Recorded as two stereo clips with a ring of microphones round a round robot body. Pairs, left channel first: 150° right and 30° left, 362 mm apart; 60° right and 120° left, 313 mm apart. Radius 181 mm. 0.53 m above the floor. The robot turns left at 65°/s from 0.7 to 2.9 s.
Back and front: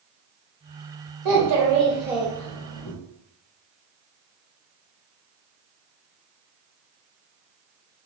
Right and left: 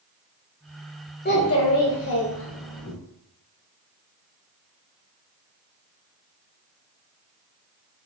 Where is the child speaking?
Straight ahead, 1.5 m; by 2.9 s 105° right, 1.5 m.